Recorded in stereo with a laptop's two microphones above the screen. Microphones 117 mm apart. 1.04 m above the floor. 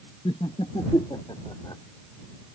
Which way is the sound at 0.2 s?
55° left (ahead or behind).